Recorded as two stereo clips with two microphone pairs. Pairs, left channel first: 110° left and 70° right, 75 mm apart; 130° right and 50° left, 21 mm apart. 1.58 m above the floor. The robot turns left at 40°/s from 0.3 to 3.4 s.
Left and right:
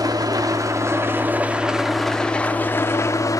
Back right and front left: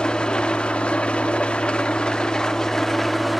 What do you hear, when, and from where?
0.0 s an engine running: 90° right, 1.7 m; by 3.4 s 145° left, 1.7 m